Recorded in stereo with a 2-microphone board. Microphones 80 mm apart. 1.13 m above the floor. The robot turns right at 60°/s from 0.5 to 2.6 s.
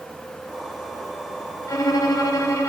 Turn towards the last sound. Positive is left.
turn(degrees=120)